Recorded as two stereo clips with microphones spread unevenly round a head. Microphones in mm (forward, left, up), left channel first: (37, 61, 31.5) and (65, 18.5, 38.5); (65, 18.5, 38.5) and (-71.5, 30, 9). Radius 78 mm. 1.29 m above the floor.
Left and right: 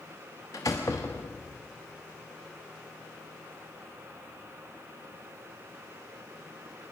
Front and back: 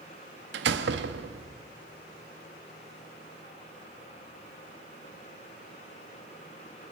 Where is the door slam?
170° right, 1.1 m.